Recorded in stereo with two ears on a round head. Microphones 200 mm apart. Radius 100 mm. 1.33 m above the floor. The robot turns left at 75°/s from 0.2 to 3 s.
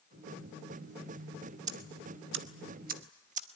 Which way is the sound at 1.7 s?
35° right (ahead or behind).